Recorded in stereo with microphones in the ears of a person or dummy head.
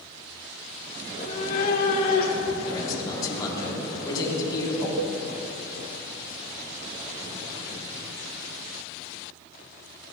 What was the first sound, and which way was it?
A cat meowing, 35° left (ahead or behind).